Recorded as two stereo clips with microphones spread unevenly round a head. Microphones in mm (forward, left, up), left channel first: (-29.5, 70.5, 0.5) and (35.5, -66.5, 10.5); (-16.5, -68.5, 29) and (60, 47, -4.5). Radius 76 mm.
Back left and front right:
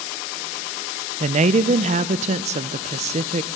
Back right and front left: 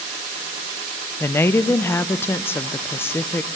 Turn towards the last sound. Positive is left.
turn(degrees=-40)